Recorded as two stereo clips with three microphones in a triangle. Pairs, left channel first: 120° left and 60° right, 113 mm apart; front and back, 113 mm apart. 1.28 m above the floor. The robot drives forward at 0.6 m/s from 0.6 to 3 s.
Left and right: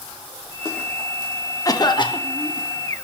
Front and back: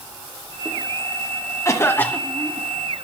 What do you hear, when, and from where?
1.6 s a cough: 60° left, 1.1 m; by 2.7 s 95° left, 1.0 m